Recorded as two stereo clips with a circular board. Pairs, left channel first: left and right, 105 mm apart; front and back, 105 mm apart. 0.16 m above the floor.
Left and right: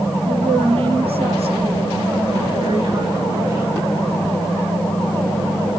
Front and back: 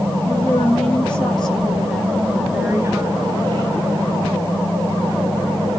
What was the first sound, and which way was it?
A woman speaking, 75° right.